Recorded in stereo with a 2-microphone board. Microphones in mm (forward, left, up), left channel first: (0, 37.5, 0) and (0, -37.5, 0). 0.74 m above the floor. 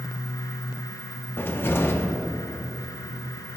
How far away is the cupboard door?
About 0.7 m.